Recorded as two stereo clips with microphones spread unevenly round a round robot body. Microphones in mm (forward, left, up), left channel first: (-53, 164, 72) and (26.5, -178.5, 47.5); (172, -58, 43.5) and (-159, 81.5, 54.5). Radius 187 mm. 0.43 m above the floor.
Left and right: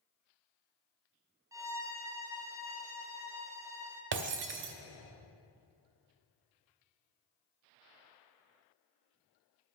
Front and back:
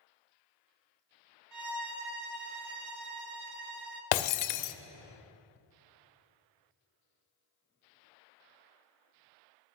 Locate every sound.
1.5 s a violin: 160° right, 0.7 m
4.1 s breaking glass: 15° right, 0.5 m